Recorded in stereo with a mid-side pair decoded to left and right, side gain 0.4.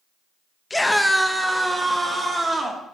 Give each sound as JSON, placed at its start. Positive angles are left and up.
{"t": 0.7, "sound": "a scream", "azimuth_deg": 20, "distance_m": 0.7}